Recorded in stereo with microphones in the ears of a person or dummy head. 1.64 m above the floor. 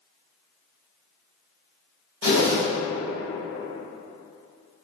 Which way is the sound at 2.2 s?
50° left (ahead or behind).